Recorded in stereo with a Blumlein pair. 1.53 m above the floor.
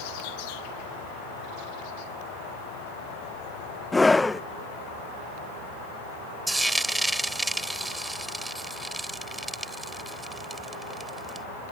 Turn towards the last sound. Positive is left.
turn(degrees=-5)